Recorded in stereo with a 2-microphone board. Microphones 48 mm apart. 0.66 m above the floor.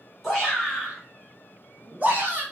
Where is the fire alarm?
No fire alarm in this recording.